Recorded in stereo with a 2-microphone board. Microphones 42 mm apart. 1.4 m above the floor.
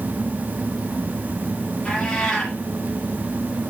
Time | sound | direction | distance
1.9 | a cat meowing | 15° left (ahead or behind) | 4 m